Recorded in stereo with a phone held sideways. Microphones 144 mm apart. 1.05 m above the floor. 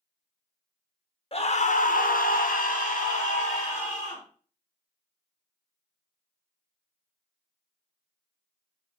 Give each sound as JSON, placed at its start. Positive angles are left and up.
{"t": 1.3, "sound": "a scream", "side_deg": 40, "distance_m": 0.6}